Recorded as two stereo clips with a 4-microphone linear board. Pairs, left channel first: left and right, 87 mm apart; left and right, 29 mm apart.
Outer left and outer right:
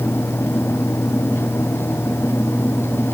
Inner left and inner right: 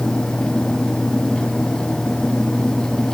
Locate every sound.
Only background noise.